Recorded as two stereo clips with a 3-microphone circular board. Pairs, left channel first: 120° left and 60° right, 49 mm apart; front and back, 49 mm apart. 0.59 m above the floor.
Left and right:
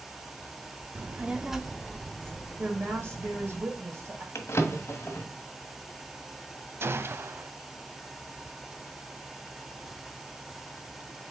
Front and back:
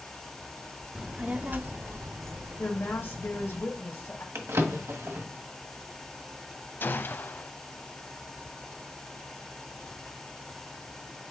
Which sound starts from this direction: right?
A child speaking, at 0.9 s.